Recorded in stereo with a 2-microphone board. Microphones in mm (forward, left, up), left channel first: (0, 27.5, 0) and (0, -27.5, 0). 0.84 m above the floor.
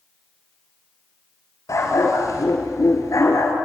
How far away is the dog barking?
About 4 m.